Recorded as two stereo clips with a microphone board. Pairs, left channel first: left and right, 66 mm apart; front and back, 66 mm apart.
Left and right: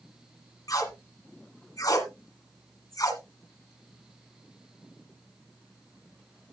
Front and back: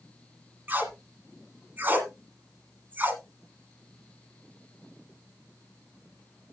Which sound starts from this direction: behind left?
Tape being pulled, at 0.7 s.